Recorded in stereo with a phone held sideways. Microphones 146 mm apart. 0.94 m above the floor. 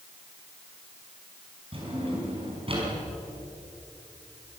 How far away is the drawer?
About 6 m.